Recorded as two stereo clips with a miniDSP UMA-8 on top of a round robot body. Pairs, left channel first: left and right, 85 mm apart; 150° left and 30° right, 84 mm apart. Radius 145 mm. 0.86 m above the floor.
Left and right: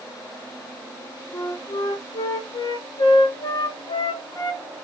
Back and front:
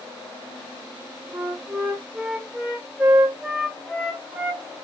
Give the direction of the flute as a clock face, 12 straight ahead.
10 o'clock.